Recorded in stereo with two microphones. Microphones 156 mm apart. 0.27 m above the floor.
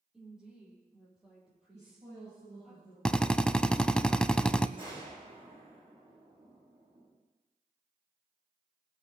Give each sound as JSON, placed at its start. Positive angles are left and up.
{"t": 0.1, "sound": "a woman speaking", "side_deg": -5, "distance_m": 9.0}
{"t": 1.7, "sound": "a woman speaking", "side_deg": -45, "distance_m": 7.5}
{"t": 3.0, "sound": "a drill", "side_deg": 5, "distance_m": 0.6}
{"t": 4.8, "sound": "a gunshot", "side_deg": -35, "distance_m": 8.5}